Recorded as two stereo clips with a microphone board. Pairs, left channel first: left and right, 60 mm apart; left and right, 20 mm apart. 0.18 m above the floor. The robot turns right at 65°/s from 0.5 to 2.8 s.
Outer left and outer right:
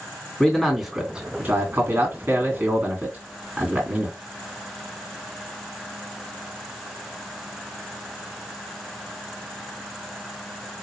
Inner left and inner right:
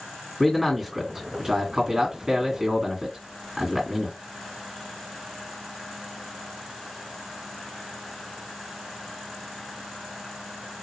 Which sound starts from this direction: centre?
A man speaking, at 0.4 s.